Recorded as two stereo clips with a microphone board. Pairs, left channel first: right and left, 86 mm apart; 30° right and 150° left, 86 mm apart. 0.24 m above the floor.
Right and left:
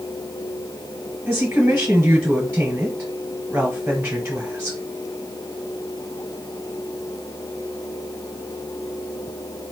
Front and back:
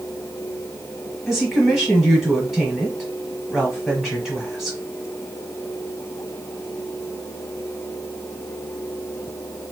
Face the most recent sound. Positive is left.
turn(degrees=60)